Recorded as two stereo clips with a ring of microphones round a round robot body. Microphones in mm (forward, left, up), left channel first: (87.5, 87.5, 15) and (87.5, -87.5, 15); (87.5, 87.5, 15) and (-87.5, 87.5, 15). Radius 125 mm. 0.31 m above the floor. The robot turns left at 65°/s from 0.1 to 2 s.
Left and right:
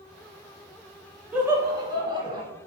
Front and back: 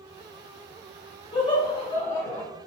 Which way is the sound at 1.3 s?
15° right.